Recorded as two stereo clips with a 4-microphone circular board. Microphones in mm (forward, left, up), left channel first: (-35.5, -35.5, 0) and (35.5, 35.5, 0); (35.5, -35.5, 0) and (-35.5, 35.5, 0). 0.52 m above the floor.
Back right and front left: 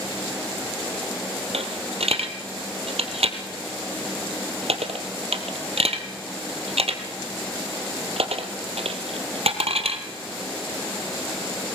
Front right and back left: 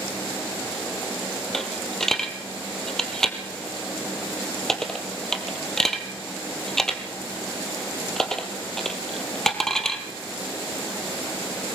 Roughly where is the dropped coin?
Ahead left.